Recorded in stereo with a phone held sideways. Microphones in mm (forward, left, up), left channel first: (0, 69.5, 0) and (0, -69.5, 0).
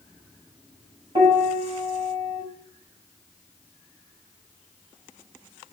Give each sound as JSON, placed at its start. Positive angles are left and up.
{"t": 1.1, "sound": "a piano", "side_deg": -40, "distance_m": 6.5}